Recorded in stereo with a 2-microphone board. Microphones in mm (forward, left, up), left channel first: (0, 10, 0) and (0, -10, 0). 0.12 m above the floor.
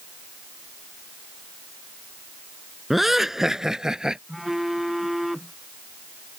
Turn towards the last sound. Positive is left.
turn(degrees=-10)  # may be behind; listen again after turning